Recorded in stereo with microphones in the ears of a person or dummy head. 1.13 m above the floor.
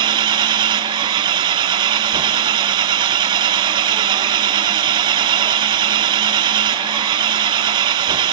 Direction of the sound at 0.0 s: 20° right (ahead or behind).